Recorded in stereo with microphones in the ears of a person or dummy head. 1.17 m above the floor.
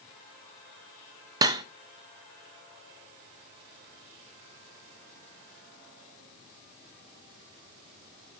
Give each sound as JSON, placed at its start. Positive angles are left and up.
{"t": 1.4, "sound": "cutlery clinking", "side_deg": -20, "distance_m": 0.5}